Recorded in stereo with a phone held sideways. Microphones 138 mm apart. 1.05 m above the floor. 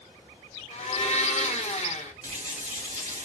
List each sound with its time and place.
0.7 s a blender: 55° left (ahead or behind), 0.7 m
2.2 s a running tap: 60° right (ahead or behind), 1.5 m